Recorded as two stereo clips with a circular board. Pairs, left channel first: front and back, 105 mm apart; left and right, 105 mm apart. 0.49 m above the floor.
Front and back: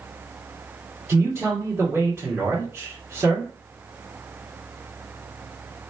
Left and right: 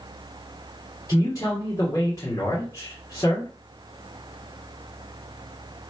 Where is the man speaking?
125° left, 1.6 m.